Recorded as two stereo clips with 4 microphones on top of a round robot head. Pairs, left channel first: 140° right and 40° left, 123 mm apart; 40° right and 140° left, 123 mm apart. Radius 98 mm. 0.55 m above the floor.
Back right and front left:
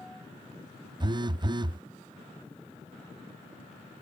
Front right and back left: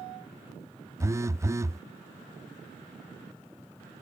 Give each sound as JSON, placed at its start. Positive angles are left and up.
{"t": 1.0, "sound": "a phone buzzing", "azimuth_deg": 80}